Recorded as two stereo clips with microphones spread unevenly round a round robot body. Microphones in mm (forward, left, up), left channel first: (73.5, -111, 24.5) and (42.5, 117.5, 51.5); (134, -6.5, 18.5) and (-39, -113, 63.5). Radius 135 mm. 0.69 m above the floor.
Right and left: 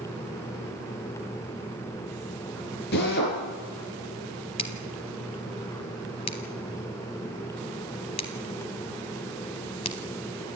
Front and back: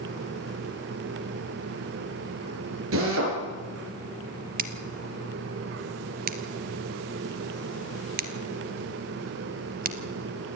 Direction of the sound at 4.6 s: 155° right.